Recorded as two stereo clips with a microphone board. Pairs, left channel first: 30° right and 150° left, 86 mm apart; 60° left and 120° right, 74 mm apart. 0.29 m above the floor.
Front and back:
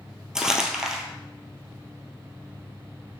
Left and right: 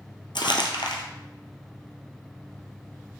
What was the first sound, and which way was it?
Crumpling, 65° left.